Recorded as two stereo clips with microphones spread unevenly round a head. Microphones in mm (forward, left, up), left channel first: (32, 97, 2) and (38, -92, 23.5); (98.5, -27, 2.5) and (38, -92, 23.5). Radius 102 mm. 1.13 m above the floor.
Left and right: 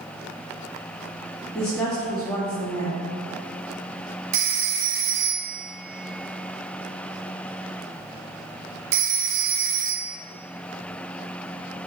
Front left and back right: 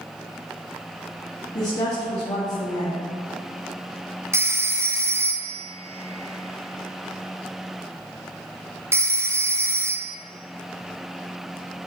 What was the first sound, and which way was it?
A woman speaking, 5° left.